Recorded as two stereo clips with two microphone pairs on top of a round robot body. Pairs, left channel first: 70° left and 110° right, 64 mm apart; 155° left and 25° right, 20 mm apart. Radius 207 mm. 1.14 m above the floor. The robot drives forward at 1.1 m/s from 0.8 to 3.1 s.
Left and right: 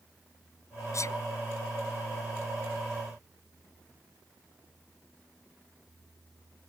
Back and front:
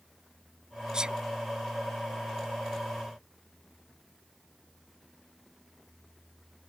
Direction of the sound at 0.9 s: 30° left.